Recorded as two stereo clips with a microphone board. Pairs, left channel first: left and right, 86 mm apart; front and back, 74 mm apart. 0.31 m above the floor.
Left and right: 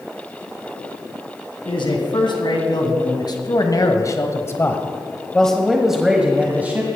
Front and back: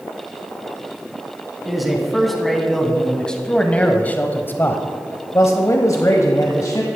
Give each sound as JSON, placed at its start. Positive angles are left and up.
{"t": 1.6, "sound": "a man speaking", "azimuth_deg": 95, "distance_m": 2.5}